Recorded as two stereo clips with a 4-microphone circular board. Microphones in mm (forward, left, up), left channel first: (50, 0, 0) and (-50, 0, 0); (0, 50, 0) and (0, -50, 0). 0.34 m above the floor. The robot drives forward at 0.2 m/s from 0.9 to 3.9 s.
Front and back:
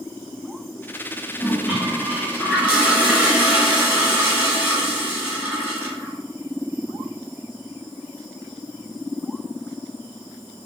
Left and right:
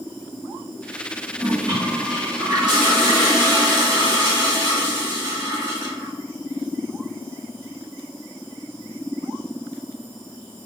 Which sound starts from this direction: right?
A toilet flushing, at 1.4 s.